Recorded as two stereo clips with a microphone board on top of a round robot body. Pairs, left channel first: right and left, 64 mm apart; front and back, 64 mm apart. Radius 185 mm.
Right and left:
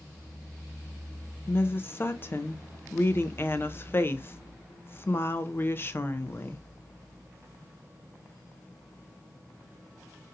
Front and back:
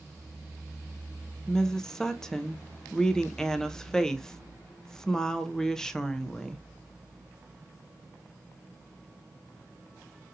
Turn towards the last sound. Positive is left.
turn(degrees=-75)